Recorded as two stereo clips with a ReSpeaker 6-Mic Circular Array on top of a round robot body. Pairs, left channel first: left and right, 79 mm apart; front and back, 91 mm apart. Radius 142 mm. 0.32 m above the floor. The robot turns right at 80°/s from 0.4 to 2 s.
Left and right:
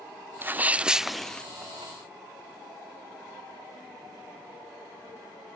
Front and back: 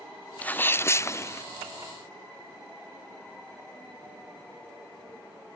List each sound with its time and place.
0.4 s a sneeze: 60° right; by 1.4 s 25° left